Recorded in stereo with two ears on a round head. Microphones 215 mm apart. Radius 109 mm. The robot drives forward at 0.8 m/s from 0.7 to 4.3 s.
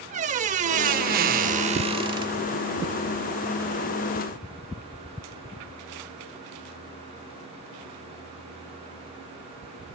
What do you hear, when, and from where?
0.1 s a squeak: 30° right (ahead or behind), 0.7 m; by 2.5 s 15° right (ahead or behind), 1.2 m